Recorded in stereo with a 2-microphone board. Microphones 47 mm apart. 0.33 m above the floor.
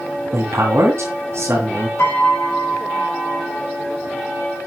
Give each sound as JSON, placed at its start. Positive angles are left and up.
{"t": 0.3, "sound": "a man speaking", "side_deg": -65, "distance_m": 2.5}
{"t": 2.0, "sound": "a piano", "side_deg": 65, "distance_m": 4.5}